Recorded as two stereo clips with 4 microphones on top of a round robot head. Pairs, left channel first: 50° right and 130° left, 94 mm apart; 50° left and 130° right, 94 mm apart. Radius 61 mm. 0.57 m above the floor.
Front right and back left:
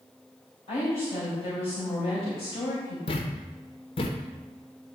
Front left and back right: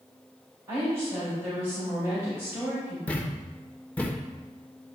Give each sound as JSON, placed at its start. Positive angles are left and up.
{"t": 0.7, "sound": "a woman speaking", "azimuth_deg": -65, "distance_m": 3.5}
{"t": 3.1, "sound": "a thud", "azimuth_deg": -25, "distance_m": 0.9}